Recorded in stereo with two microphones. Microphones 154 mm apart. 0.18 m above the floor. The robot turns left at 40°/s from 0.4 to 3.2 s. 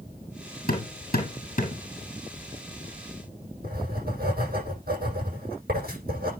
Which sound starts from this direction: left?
Hammering, at 0.7 s.